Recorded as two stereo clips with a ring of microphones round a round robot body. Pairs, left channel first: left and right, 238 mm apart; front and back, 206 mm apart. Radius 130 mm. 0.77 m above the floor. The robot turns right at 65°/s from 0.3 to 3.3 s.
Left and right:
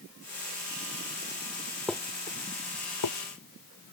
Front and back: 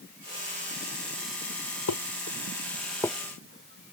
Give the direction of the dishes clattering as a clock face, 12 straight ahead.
12 o'clock.